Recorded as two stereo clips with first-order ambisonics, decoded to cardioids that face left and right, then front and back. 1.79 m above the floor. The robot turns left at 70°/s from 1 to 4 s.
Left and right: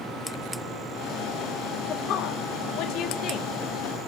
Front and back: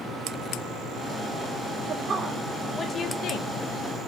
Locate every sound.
1.9 s a woman speaking: 140° left, 1.4 m; by 3.5 s 25° left, 1.4 m